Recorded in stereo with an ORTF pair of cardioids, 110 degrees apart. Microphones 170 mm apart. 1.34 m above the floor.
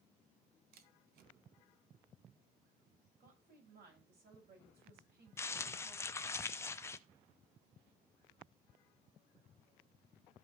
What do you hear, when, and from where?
0.7 s a camera shutter: 70° right, 1.0 m
3.2 s a woman speaking: 65° right, 6 m
5.4 s crumpling: 15° left, 0.6 m